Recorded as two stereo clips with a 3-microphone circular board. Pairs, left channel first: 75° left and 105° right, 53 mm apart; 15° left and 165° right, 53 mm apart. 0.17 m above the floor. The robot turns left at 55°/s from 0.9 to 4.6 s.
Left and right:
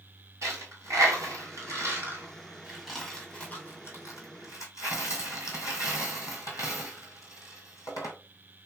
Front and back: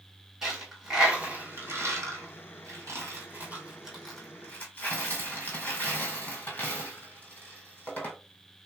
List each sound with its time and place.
0.4 s a dropped coin: 85° right, 1.5 m; by 8.2 s 75° left, 1.5 m